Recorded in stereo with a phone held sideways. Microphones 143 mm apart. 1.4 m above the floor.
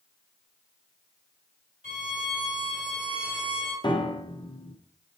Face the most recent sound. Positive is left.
turn(degrees=35)  # may be behind; listen again after turning